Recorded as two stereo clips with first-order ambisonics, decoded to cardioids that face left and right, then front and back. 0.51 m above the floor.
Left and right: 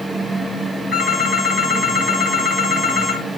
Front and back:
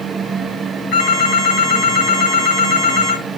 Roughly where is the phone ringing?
Ahead.